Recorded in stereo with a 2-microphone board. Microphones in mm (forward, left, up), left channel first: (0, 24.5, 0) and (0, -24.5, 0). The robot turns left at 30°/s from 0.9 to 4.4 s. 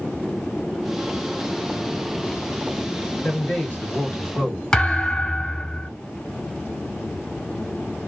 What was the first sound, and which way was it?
A man speaking, 80° left.